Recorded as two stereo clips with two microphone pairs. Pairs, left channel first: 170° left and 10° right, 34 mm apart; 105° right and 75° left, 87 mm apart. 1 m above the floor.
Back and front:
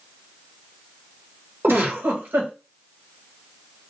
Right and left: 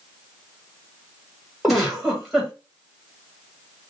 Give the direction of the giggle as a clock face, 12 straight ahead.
12 o'clock.